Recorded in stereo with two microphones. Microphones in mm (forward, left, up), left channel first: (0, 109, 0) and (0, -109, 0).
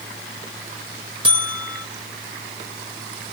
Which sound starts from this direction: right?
A buzzer, at 1.2 s.